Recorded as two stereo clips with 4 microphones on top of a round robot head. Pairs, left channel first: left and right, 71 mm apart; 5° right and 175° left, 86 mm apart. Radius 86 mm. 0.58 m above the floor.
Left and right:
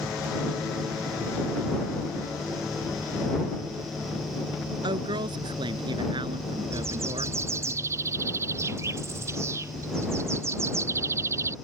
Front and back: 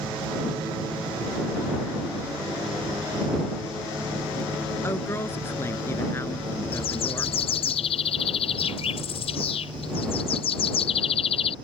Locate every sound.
4.8 s a woman speaking: 70° right
6.7 s a bird: 30° right